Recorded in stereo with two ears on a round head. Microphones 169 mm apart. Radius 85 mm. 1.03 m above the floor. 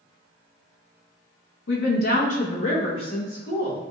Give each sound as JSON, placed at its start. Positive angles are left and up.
{"t": 1.7, "sound": "a woman speaking", "side_deg": 65, "distance_m": 0.6}